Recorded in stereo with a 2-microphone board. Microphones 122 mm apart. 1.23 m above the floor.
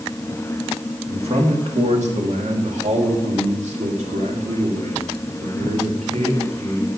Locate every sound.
1.1 s a man speaking: 55° right (ahead or behind), 2.0 m; by 6.9 s 70° right (ahead or behind), 3.5 m